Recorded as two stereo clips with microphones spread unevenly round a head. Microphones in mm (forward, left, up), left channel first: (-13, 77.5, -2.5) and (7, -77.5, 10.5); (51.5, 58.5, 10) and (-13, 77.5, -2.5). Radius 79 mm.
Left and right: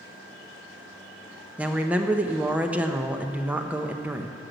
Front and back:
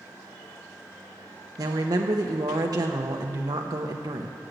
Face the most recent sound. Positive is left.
turn(degrees=-165)